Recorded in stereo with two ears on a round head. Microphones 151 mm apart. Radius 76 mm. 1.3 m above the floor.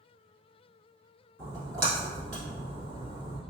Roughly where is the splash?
Right.